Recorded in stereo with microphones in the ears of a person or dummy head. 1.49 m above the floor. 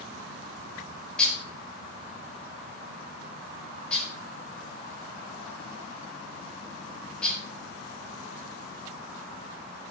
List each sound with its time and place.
1.2 s dishes clattering: 5° left (ahead or behind), 4.5 m